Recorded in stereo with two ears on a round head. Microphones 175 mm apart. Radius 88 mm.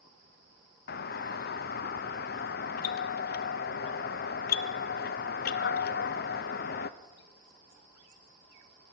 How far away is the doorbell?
About 0.6 m.